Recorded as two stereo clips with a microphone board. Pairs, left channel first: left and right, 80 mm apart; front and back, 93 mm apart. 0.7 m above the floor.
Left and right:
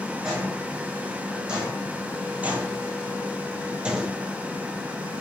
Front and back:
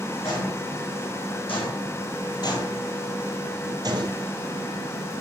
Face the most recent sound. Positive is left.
turn(degrees=-170)